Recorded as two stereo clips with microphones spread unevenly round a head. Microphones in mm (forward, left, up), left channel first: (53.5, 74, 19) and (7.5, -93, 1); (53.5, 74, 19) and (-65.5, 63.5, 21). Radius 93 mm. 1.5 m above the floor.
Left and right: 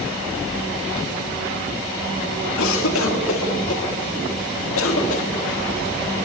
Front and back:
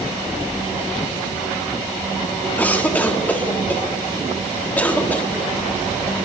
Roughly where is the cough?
Left.